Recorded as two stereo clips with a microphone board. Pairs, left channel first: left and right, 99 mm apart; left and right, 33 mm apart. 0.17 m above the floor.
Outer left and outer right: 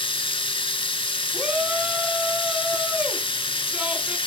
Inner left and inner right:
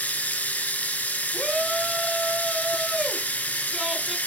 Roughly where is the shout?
Centre.